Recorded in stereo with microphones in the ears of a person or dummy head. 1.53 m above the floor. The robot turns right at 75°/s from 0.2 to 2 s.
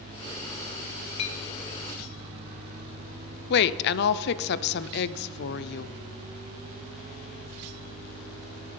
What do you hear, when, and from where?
1.2 s a clink: 30° left (ahead or behind), 0.8 m; by 1.4 s 40° left (ahead or behind), 0.8 m
3.5 s a woman speaking: 55° left (ahead or behind), 0.6 m